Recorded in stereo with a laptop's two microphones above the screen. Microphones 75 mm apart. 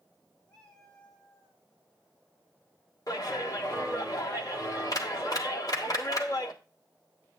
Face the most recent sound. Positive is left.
turn(degrees=50)  # may be behind; listen again after turning